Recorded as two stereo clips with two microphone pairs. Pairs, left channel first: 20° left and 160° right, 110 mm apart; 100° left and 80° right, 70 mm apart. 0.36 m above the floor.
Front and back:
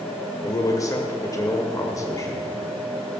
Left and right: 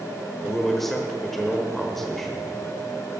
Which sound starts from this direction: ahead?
A man speaking, at 0.4 s.